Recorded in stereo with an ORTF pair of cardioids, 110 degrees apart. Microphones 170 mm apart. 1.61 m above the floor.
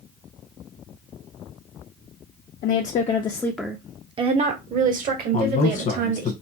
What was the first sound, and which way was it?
A woman speaking, 55° left.